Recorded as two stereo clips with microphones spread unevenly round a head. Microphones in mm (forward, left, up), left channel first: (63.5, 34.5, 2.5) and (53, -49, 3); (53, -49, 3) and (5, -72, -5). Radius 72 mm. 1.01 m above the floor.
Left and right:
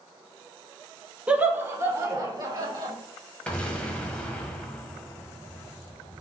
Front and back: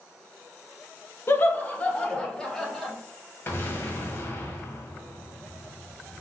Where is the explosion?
10° left, 1.2 m.